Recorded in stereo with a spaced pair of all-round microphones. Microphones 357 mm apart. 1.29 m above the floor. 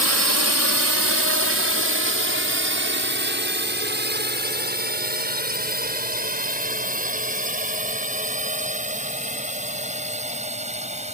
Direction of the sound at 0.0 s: 45° right (ahead or behind).